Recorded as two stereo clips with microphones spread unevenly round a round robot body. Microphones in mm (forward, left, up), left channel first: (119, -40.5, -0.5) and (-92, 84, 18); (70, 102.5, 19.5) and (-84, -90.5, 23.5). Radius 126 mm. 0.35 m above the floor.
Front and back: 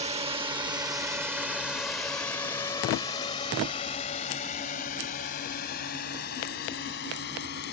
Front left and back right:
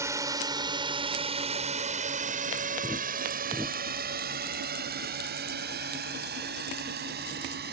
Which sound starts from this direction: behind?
A drone, at 0.0 s.